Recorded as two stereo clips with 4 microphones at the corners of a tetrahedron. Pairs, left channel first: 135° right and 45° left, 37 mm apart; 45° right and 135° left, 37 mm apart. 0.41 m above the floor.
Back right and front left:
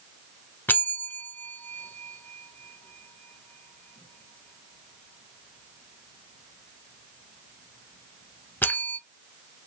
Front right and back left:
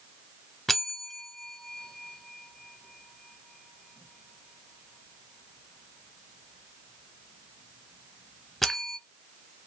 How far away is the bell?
About 0.5 m.